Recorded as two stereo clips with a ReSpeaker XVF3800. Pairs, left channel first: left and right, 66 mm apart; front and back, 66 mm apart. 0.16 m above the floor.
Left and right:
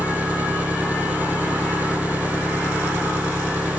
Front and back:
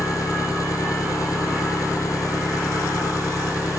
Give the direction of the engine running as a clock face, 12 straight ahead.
1 o'clock.